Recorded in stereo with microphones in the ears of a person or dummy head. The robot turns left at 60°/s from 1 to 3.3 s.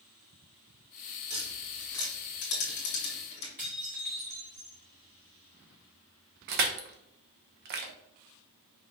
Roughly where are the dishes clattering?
Centre.